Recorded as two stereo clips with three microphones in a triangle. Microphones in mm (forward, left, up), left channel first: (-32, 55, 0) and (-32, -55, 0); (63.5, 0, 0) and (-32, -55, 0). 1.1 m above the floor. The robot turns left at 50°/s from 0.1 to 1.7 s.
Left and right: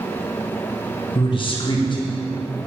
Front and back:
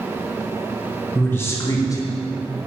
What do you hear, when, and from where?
1.1 s a man speaking: 105° left, 1.0 m; by 2.0 s 75° left, 1.0 m